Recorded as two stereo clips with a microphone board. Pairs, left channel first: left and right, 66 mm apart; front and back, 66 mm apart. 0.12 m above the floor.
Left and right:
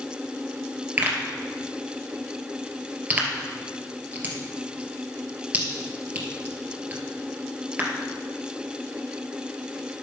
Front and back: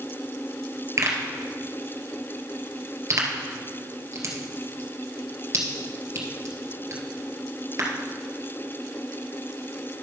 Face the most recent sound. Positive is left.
turn(degrees=-150)